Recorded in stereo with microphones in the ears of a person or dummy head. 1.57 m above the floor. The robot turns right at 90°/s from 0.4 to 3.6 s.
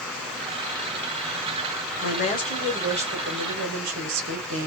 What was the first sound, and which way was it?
A woman speaking, 125° left.